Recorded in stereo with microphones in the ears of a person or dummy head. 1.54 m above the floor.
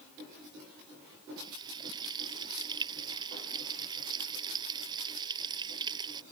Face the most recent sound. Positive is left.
turn(degrees=-25)  # may be behind; listen again after turning